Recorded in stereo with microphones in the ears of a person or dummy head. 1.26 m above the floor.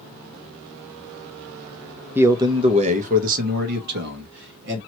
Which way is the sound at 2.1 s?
10° right (ahead or behind).